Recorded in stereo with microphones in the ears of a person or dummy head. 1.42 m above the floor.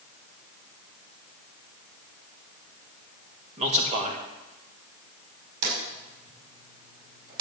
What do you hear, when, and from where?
3.6 s a man speaking: 35° right (ahead or behind), 2.5 m
5.6 s a drawer: 55° right (ahead or behind), 5.5 m